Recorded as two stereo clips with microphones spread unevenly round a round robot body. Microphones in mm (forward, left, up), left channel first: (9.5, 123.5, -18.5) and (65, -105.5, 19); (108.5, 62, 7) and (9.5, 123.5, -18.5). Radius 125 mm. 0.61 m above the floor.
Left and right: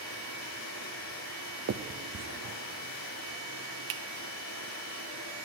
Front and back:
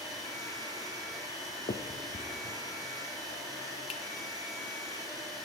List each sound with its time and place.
0.0 s running water: 90° left, 6.5 m
1.7 s a finger snap: 65° right, 0.6 m